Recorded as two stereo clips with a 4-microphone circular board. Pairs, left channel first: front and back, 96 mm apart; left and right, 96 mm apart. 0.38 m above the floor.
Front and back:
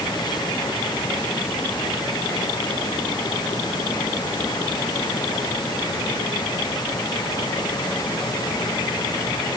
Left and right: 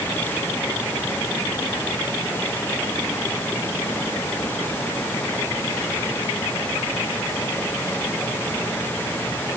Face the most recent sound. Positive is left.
No sound to turn to.